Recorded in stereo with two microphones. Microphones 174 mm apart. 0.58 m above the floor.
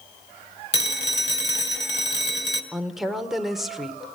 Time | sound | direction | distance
0.7 | a phone ringing | 75° left (ahead or behind) | 1.9 m
2.7 | a woman speaking | centre (ahead or behind) | 1.5 m